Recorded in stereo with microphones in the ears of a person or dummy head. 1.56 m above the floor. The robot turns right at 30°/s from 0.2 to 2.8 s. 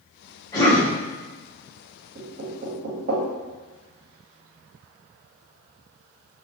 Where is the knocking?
35° right (ahead or behind), 0.5 m; by 3.2 s 50° right (ahead or behind), 0.5 m.